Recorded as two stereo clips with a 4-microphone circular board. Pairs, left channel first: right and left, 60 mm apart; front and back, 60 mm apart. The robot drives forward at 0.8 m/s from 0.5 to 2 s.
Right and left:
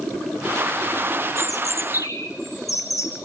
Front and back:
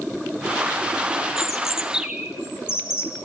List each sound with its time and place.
1.4 s a bird: 95° right, 2.5 m; by 3.1 s 105° right, 3 m